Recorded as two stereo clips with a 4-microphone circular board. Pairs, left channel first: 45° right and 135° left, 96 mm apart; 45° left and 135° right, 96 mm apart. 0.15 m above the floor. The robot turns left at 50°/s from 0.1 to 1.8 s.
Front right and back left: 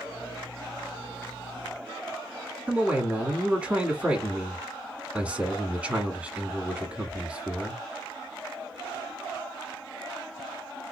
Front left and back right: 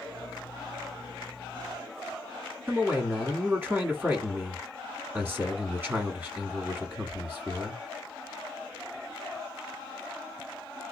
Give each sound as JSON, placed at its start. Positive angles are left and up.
{"t": 2.7, "sound": "a man speaking", "azimuth_deg": -170, "distance_m": 1.1}